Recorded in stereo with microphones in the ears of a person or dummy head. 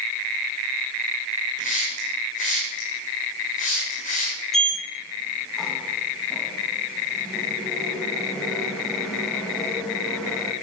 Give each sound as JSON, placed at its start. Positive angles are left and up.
{"t": 1.6, "sound": "a hiss", "side_deg": 45, "distance_m": 3.0}
{"t": 4.5, "sound": "a sliding door", "side_deg": 5, "distance_m": 1.8}